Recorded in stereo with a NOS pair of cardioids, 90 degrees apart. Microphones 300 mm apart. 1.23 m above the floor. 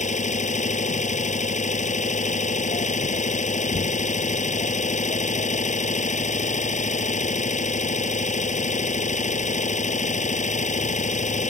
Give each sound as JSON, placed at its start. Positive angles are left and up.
{"t": 0.0, "sound": "an engine running", "azimuth_deg": 25}